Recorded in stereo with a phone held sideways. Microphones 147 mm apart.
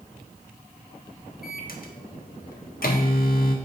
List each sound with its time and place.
1.4 s a microwave: 75° left (ahead or behind), 0.5 m